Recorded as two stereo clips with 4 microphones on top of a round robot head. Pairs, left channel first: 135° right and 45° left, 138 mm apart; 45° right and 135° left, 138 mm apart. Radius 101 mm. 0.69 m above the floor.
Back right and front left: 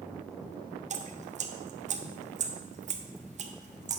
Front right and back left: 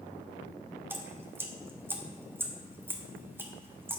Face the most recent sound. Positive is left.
turn(degrees=60)